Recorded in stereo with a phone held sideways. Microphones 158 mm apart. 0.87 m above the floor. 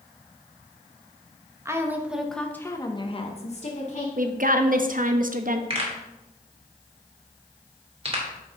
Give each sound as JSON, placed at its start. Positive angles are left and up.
{"t": 1.6, "sound": "a woman speaking", "side_deg": -15, "distance_m": 1.1}
{"t": 4.2, "sound": "a woman speaking", "side_deg": -60, "distance_m": 0.7}
{"t": 5.7, "sound": "a pop", "side_deg": -40, "distance_m": 2.5}